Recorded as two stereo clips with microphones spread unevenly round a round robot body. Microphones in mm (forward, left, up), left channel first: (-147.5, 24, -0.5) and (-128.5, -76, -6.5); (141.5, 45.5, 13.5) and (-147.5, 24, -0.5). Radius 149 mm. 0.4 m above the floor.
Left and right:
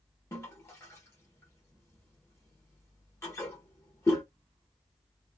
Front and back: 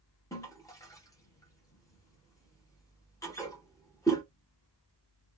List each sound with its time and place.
0.3 s a toilet flushing: 75° left, 0.7 m